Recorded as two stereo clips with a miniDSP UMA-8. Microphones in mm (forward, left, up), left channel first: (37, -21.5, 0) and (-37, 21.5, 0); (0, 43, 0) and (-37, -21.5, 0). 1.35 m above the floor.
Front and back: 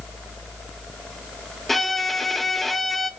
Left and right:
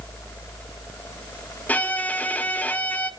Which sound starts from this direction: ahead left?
A violin, at 1.7 s.